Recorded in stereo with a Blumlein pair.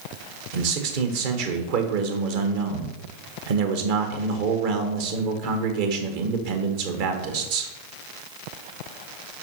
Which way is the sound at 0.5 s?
50° right.